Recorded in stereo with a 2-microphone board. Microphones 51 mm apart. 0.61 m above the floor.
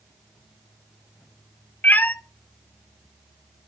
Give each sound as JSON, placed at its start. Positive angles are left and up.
{"t": 1.8, "sound": "a cat meowing", "side_deg": 35, "distance_m": 0.5}